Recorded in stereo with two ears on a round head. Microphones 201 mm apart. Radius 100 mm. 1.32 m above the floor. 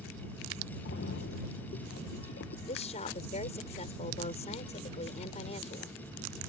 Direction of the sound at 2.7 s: 30° left (ahead or behind).